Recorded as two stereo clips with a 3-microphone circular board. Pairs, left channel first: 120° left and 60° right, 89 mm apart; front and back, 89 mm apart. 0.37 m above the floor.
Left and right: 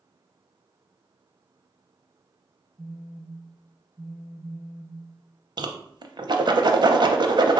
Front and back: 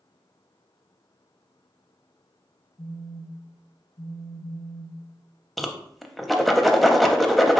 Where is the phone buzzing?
35° left, 0.6 m.